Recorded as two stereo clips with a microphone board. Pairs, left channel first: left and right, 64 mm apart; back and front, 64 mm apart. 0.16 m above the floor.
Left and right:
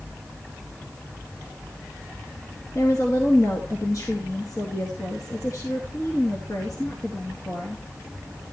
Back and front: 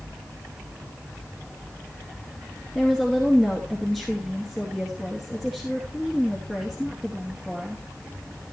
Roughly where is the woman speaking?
Left.